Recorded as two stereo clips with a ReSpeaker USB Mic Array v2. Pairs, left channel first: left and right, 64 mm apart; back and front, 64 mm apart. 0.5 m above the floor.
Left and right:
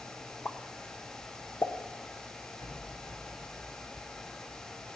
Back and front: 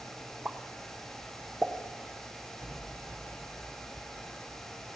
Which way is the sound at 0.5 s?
65° left.